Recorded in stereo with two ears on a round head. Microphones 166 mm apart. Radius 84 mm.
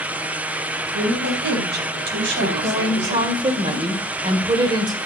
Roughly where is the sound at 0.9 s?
Right.